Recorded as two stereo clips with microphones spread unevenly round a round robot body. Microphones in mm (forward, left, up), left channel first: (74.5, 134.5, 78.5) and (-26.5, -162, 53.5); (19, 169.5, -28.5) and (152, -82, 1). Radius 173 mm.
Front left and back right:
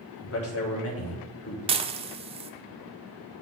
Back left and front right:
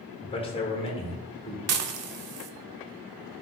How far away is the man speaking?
About 1.5 m.